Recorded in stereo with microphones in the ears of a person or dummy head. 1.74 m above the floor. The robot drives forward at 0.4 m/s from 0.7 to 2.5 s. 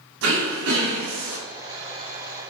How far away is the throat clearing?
About 2 m.